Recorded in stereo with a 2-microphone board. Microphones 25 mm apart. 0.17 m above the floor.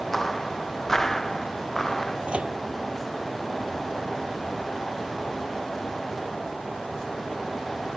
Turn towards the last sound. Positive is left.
turn(degrees=-55)  # may be behind; listen again after turning